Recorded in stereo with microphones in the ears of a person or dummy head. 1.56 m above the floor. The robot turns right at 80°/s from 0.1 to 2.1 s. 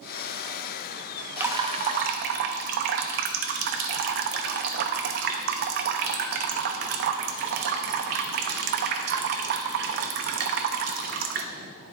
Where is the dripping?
170° right, 0.6 m; by 11.4 s 110° right, 0.6 m.